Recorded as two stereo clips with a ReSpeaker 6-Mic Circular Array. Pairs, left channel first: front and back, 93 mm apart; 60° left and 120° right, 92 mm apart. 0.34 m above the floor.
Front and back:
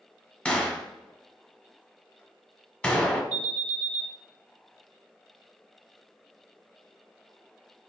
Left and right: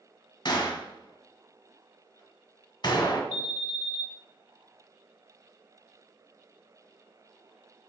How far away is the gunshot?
About 0.9 m.